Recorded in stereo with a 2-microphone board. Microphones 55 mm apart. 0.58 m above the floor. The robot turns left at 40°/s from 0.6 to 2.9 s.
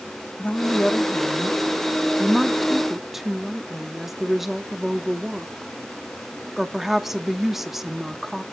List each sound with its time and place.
0.4 s a woman speaking: 25° left (ahead or behind), 0.9 m; by 8.4 s 5° right (ahead or behind), 0.9 m